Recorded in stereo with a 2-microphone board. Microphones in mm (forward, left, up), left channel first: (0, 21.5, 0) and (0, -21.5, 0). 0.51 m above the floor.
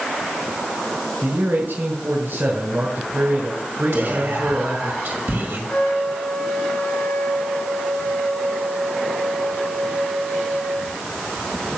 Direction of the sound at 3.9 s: 65° right (ahead or behind).